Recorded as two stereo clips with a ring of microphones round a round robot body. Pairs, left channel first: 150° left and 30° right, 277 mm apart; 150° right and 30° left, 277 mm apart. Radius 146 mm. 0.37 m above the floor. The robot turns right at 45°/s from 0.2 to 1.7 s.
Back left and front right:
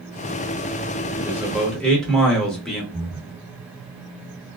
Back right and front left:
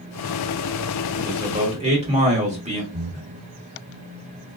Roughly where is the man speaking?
Ahead left.